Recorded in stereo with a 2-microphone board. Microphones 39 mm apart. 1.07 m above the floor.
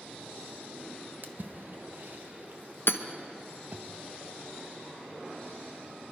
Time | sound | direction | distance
1.2 | a splash | 55° right (ahead or behind) | 0.9 m
2.9 | hammering | 70° left (ahead or behind) | 0.7 m